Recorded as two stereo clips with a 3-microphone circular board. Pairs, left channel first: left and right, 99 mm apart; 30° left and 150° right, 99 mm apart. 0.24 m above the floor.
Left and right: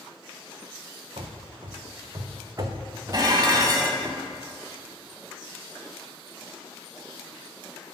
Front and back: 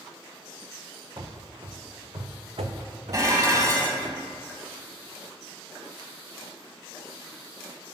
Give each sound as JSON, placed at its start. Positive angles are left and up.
{"t": 1.2, "sound": "running footsteps", "azimuth_deg": -100, "distance_m": 1.1}
{"t": 3.1, "sound": "dishes clattering", "azimuth_deg": -115, "distance_m": 1.1}